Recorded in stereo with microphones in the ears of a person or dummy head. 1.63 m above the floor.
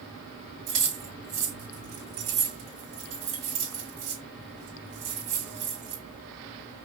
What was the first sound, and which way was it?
Keys jangling, 25° right (ahead or behind).